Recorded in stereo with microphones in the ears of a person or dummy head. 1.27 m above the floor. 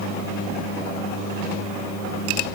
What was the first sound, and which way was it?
Only background noise.